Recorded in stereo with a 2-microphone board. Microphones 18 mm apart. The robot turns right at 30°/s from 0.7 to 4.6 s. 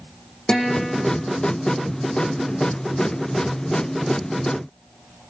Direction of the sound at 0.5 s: 40° left (ahead or behind).